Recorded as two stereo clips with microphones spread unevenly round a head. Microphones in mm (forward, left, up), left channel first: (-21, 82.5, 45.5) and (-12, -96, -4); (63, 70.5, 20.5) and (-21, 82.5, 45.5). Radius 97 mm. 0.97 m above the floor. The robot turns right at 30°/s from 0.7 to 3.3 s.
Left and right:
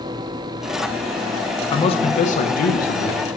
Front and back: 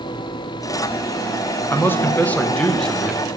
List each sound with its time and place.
1.7 s a man speaking: 20° left, 0.6 m; by 3.3 s 70° left, 0.6 m